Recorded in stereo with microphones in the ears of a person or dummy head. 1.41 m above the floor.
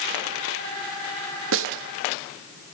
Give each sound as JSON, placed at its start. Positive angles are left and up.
{"t": 1.5, "sound": "a snare drum", "side_deg": -70, "distance_m": 1.0}